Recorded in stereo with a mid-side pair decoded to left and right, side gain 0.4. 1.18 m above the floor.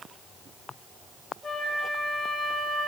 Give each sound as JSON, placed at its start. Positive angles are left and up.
{"t": 1.4, "sound": "a flute", "azimuth_deg": 40, "distance_m": 2.0}